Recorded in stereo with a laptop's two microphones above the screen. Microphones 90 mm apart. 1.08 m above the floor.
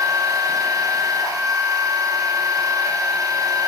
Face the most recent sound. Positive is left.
turn(degrees=-35)  # may be behind; listen again after turning